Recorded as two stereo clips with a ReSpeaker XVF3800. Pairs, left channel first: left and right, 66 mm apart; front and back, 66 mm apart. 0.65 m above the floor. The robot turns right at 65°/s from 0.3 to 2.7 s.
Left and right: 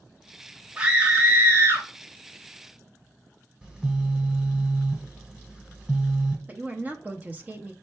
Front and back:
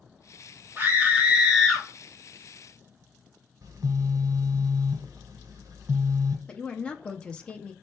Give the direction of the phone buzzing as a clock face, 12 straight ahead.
5 o'clock.